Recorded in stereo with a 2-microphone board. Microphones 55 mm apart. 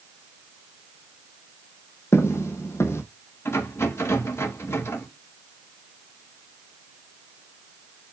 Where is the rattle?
50° left (ahead or behind), 2.5 m.